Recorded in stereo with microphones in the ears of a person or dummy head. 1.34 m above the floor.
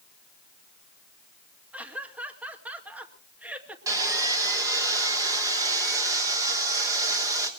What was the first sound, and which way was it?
Laughter, 5° right (ahead or behind).